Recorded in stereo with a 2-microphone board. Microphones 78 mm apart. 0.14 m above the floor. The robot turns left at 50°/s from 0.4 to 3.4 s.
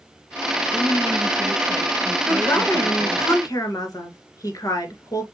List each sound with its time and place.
0.7 s a woman speaking: 25° right (ahead or behind), 1.3 m; by 3.2 s 25° left (ahead or behind), 1.3 m
2.2 s a woman speaking: 160° left, 2 m; by 5.2 s 100° left, 2 m